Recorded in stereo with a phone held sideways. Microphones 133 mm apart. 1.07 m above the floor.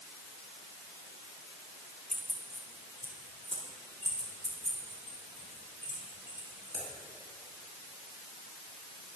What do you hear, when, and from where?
2.1 s keys jangling: 5° left (ahead or behind), 2.5 m; by 6.8 s 75° right (ahead or behind), 7 m